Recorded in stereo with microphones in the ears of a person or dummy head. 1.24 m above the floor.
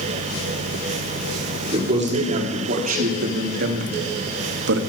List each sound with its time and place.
1.7 s a man speaking: 35° right (ahead or behind), 2.5 m; by 4.8 s 85° right, 1.5 m